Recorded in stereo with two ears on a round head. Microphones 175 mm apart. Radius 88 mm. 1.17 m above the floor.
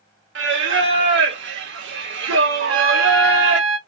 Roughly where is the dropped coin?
No dropped coin in this recording.